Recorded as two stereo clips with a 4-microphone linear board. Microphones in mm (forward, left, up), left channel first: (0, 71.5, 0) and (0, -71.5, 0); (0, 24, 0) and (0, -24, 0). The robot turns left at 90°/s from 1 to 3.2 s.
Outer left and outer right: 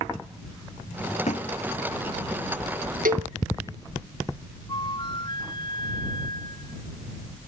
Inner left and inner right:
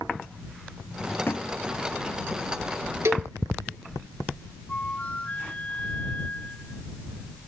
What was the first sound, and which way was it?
A thud, 50° left (ahead or behind).